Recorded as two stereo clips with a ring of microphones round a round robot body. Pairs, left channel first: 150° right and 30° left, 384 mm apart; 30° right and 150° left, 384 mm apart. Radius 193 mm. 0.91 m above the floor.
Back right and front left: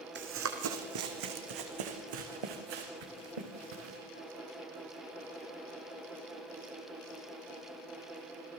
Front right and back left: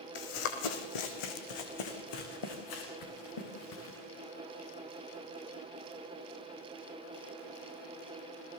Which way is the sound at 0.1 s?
35° right.